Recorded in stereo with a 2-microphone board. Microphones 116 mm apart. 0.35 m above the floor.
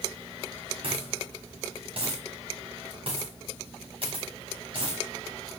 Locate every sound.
0.8 s a dropped coin: 55° right (ahead or behind), 5.5 m